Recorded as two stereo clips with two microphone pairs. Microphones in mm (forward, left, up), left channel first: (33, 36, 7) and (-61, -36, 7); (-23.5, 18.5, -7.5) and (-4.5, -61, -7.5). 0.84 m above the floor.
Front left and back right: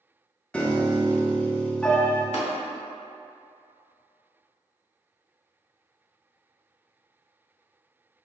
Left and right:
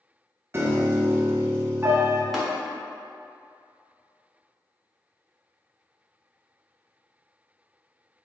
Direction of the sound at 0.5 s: 40° right.